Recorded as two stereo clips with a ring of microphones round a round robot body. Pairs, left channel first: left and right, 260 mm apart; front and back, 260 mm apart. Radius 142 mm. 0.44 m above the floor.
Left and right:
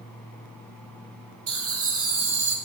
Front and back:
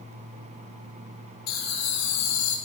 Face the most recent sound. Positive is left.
turn(degrees=-40)